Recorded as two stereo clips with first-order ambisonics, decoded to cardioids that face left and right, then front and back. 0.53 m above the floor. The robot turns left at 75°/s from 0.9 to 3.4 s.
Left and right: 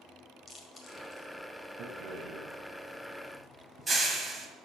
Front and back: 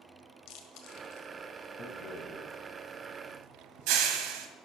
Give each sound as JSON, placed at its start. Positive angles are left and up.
{"t": 0.5, "sound": "chewing", "azimuth_deg": 20, "distance_m": 1.6}
{"t": 1.8, "sound": "a rattle", "azimuth_deg": -45, "distance_m": 1.3}